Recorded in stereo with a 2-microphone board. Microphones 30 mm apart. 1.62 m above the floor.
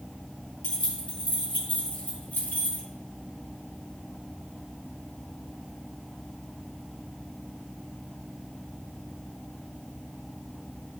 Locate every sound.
0.6 s keys jangling: 40° left (ahead or behind), 3 m; by 2.8 s 85° left, 4 m